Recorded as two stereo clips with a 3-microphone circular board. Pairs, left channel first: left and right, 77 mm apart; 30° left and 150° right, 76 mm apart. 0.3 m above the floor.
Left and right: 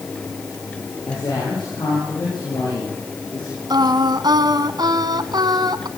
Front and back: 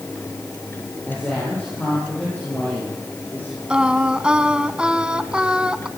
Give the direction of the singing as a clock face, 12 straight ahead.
2 o'clock.